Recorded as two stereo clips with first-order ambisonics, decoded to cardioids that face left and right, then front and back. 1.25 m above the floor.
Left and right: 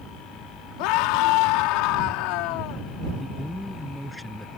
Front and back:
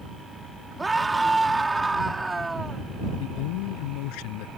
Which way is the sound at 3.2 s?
Straight ahead.